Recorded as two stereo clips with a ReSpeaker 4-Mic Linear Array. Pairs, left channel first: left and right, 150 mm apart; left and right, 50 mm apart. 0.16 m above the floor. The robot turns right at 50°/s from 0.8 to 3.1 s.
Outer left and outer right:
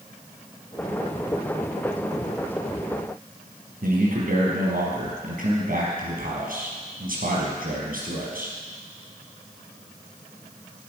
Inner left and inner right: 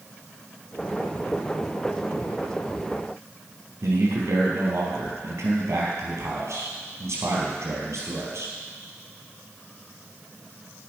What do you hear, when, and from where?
3.8 s a man speaking: 70° right (ahead or behind), 4.5 m